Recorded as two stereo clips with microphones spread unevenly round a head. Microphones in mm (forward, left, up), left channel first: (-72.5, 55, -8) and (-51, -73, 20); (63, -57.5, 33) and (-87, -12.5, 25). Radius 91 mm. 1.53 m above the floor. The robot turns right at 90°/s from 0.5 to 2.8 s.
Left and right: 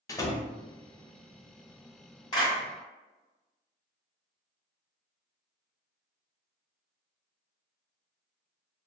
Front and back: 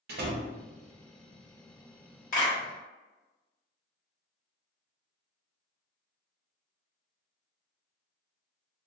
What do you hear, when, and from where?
0.1 s a door slam: 170° left, 0.6 m
2.3 s a clap: 30° left, 1.6 m; by 2.6 s 50° left, 1.6 m